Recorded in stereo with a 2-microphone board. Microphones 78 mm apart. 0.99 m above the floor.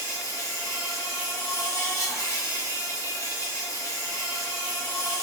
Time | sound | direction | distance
0.0 | an insect | 40° left (ahead or behind) | 1.0 m